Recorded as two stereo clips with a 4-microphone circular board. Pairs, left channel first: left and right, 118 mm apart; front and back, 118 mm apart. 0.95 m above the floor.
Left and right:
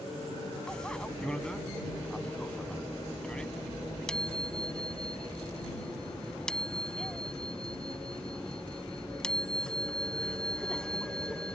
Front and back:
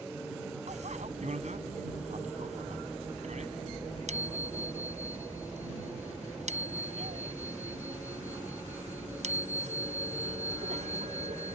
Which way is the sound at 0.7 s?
175° left.